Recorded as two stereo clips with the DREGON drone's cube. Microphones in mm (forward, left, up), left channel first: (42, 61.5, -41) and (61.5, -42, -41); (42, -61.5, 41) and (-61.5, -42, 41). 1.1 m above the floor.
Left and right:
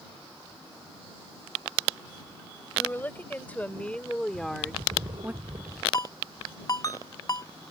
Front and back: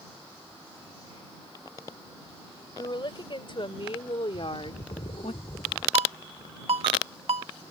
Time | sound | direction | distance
2.8 | a woman speaking | 30° left | ?
4.3 | a bird | 40° right | ?
5.9 | a ringtone | 150° left | ?